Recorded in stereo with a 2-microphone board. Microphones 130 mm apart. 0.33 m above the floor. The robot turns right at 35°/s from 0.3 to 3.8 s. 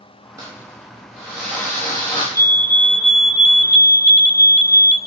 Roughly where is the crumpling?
Ahead right.